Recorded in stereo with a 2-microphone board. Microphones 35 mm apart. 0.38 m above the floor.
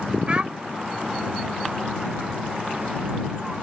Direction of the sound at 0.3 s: 35° right (ahead or behind).